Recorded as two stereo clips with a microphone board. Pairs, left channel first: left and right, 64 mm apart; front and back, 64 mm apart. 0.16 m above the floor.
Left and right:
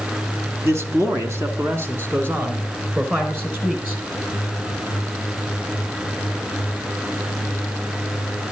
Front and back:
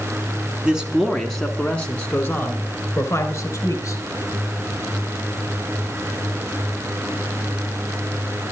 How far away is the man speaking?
About 1.5 m.